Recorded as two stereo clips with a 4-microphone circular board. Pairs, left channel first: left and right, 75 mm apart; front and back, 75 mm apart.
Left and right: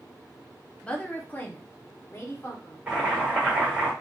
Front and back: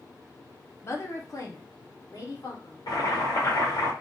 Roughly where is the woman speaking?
Ahead.